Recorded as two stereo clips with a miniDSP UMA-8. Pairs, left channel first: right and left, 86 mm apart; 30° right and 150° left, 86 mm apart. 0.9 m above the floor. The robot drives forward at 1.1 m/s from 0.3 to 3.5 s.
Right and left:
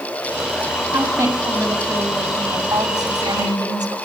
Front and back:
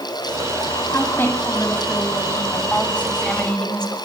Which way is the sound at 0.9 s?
35° left.